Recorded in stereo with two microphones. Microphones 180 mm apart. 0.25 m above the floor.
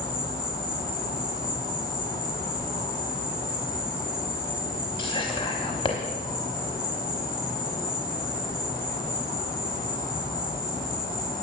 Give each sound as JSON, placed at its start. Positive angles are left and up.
{"t": 0.0, "sound": "an insect", "side_deg": 55, "distance_m": 6.0}
{"t": 5.0, "sound": "whispering", "side_deg": 30, "distance_m": 1.2}